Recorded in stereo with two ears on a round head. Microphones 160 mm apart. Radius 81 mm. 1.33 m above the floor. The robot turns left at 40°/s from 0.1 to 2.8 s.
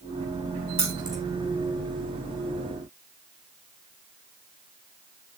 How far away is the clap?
I don't hear a clap.